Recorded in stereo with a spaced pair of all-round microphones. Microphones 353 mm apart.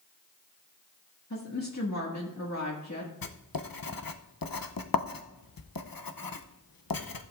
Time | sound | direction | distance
1.3 | a woman speaking | 50° left (ahead or behind) | 1.8 m
3.2 | writing | 75° left (ahead or behind) | 0.7 m